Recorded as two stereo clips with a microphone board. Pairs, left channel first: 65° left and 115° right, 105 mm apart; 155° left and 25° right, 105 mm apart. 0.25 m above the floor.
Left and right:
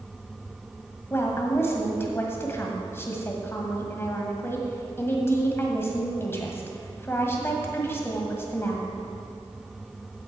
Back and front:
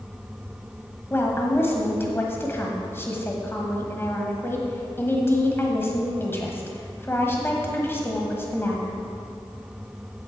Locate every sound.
1.1 s a woman speaking: 110° left, 1.5 m